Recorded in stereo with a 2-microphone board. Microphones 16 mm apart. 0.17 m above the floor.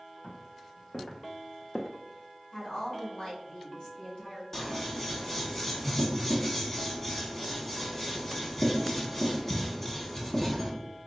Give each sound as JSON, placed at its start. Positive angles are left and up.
{"t": 0.2, "sound": "footsteps", "side_deg": 80, "distance_m": 1.5}
{"t": 2.5, "sound": "a woman speaking", "side_deg": 45, "distance_m": 1.8}
{"t": 4.5, "sound": "scissors", "side_deg": 20, "distance_m": 0.9}